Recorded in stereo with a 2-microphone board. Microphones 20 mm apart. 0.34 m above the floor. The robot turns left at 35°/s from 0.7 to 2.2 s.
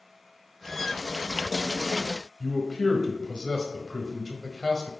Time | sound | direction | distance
2.4 | a man speaking | 40° left (ahead or behind) | 1.4 m